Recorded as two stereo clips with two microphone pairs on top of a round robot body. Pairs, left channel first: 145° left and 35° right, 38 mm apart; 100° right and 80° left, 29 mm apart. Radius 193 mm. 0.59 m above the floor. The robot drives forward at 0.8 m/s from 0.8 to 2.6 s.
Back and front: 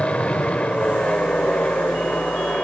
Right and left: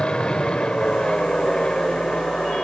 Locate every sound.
0.0 s an aircraft: 155° right